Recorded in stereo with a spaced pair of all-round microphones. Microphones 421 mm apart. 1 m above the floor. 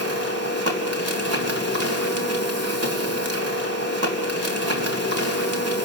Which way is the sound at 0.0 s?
35° right (ahead or behind).